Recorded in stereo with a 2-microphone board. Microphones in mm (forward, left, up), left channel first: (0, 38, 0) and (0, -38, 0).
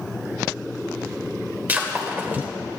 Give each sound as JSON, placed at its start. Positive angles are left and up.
{"t": 1.7, "sound": "breaking glass", "side_deg": -25, "distance_m": 1.9}